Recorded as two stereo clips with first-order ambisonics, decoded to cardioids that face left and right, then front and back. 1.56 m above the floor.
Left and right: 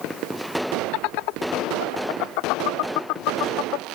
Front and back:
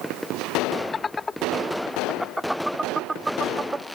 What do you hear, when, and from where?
0.9 s laughter: 75° left; by 3.9 s 105° left